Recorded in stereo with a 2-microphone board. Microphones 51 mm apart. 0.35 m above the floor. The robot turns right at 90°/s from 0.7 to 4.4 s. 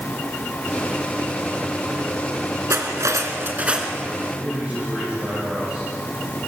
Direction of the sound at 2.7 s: 115° right.